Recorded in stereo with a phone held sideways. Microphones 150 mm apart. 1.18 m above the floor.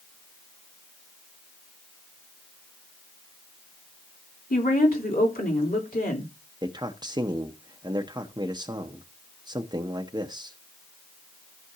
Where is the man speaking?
30° right (ahead or behind), 0.8 m.